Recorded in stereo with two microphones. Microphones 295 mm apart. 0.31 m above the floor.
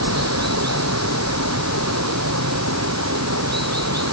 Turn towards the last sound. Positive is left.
turn(degrees=-55)  # may be behind; listen again after turning